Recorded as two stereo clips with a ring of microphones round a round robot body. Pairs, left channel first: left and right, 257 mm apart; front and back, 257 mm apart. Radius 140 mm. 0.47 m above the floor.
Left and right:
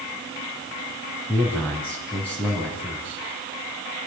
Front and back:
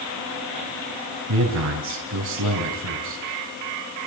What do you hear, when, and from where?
1.3 s a man speaking: 175° left, 4 m